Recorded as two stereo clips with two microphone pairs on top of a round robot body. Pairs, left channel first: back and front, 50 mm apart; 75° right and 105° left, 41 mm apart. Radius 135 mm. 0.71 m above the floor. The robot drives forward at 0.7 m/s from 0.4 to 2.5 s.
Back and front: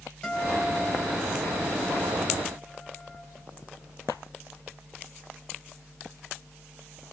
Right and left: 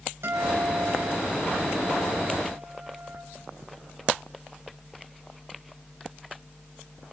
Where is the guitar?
110° left, 6 m; by 3.2 s 120° left, 7 m.